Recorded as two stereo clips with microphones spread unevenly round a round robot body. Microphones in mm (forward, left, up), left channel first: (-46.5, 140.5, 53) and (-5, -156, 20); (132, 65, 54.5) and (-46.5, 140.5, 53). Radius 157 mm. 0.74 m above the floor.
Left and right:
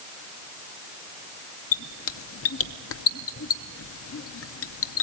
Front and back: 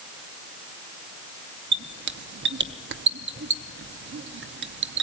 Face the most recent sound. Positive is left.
turn(degrees=145)